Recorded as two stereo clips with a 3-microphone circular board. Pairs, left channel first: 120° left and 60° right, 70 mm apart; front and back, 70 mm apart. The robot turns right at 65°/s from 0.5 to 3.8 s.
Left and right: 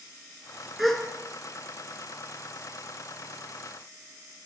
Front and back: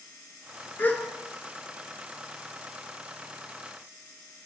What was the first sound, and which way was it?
A gasp, 25° left.